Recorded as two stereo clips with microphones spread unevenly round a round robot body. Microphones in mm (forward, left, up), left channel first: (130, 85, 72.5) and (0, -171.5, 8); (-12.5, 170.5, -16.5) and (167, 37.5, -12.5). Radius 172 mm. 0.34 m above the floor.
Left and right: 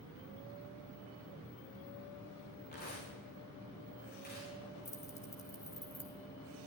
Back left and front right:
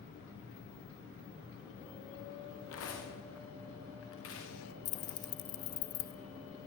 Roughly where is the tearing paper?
Behind left.